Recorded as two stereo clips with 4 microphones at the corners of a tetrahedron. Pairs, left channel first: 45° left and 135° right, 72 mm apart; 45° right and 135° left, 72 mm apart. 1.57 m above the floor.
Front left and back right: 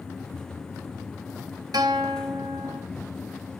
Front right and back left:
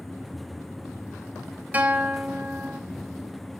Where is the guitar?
160° right, 0.9 m.